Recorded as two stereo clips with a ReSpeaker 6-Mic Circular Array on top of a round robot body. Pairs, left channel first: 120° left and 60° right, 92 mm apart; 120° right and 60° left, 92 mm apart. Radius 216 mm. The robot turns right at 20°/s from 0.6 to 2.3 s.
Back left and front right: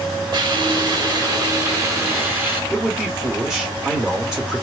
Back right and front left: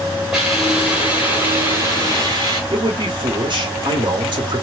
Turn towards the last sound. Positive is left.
turn(degrees=25)